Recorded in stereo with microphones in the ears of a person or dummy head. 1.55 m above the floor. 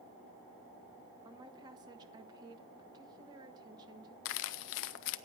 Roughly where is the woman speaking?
Right.